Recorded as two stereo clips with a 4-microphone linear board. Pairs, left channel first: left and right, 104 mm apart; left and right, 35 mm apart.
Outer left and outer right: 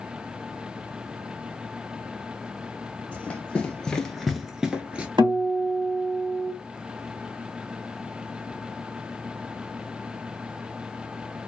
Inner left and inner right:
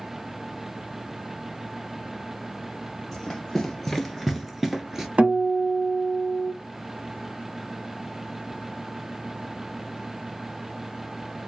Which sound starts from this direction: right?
A guitar, at 5.2 s.